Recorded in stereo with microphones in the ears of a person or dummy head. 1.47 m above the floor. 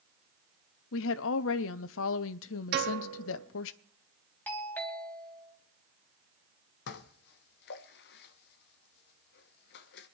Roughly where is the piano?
Right.